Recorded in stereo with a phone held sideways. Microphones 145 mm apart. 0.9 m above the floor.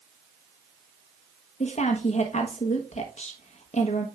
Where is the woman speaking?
50° left (ahead or behind), 1.2 m.